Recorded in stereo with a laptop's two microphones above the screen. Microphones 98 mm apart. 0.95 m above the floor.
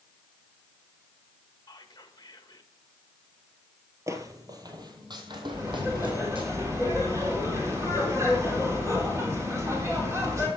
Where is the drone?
No drone in this recording.